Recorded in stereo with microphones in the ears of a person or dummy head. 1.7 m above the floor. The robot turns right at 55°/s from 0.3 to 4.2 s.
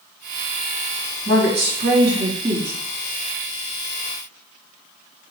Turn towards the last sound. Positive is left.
turn(degrees=70)